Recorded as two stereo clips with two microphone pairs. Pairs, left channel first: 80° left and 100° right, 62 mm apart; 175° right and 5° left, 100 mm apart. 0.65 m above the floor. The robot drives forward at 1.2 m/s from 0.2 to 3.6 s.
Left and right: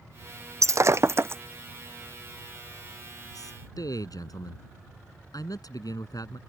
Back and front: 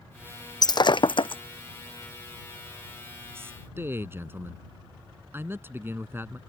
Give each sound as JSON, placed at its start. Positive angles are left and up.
{"t": 0.6, "sound": "breaking glass", "azimuth_deg": -130}
{"t": 3.4, "sound": "a man speaking", "azimuth_deg": 70}